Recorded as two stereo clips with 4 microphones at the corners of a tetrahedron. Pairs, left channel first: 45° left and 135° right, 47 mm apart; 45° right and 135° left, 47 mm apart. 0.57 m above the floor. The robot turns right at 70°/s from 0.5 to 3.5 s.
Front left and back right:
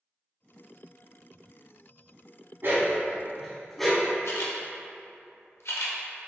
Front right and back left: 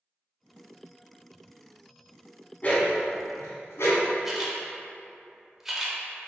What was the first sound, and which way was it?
A dog barking, 100° right.